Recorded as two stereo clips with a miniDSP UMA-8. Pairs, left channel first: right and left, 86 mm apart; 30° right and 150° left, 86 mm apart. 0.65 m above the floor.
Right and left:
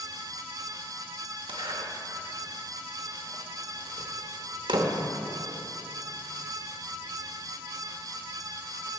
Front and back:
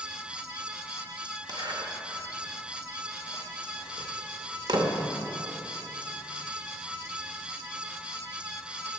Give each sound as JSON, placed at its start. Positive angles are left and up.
{"t": 1.5, "sound": "a zipper", "azimuth_deg": 115, "distance_m": 0.9}